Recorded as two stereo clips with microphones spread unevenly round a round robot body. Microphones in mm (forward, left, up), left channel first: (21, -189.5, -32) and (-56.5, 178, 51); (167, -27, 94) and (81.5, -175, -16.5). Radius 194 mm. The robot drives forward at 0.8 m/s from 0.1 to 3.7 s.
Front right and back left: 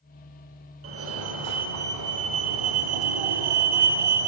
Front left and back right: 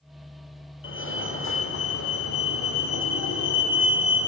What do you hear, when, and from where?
0.8 s a fire alarm: 40° left, 3 m; by 4.3 s 95° left, 2.5 m